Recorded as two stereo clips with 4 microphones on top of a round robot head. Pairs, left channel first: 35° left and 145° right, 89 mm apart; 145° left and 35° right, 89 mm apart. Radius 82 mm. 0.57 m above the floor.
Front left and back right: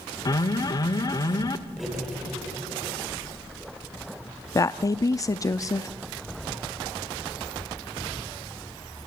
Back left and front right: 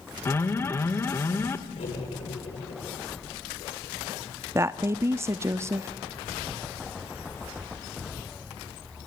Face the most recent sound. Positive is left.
turn(degrees=10)